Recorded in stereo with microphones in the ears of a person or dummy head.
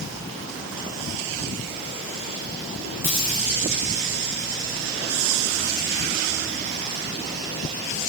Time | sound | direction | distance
3.0 | a dropped coin | 10° right (ahead or behind) | 7 m